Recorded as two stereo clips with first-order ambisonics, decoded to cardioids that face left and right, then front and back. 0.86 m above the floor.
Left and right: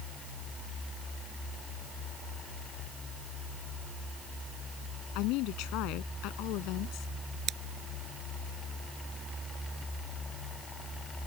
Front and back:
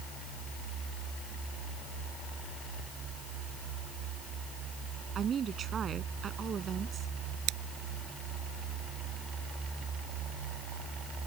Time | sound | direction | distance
5.2 | a woman speaking | 120° left | ?
7.5 | scissors | 150° right | ?